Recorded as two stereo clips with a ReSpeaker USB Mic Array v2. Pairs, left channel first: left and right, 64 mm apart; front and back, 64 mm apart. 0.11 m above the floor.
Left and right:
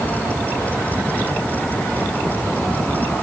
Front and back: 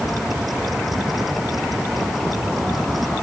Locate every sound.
Only background noise.